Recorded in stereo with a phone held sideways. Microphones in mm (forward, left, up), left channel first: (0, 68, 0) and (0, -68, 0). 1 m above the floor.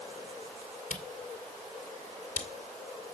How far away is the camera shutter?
About 2.5 m.